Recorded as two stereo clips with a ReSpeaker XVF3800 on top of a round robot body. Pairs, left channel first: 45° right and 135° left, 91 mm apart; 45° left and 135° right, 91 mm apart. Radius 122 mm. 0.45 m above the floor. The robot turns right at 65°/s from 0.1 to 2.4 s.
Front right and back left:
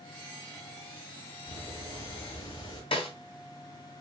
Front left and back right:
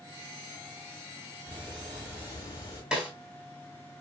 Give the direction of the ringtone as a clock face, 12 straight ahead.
I don't hear a ringtone.